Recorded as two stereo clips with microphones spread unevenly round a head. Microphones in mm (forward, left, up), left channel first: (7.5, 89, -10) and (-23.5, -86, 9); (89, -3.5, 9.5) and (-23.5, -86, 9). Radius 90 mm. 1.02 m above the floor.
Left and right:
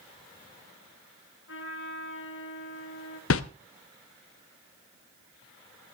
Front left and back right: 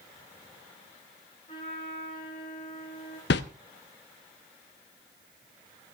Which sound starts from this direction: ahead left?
A whoosh, at 3.3 s.